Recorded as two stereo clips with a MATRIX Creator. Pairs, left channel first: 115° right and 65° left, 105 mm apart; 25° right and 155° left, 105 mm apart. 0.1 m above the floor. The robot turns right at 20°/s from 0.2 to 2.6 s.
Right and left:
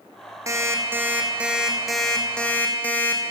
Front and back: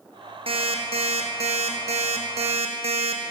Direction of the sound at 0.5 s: 130° left.